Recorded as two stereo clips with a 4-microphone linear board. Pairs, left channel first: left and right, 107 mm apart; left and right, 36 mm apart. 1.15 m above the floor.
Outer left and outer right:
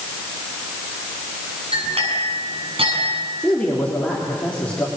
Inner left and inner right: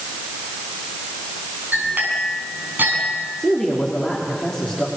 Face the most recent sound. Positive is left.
turn(degrees=10)  # may be behind; listen again after turning